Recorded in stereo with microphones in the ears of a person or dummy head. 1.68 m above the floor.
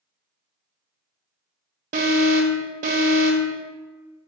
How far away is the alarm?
About 0.8 m.